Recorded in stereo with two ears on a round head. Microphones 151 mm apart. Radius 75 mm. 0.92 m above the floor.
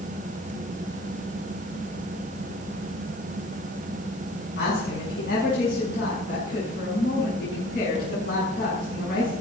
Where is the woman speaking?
60° left (ahead or behind), 7 m.